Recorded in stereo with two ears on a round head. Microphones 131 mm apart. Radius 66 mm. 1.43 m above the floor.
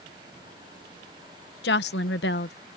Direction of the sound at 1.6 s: 85° left.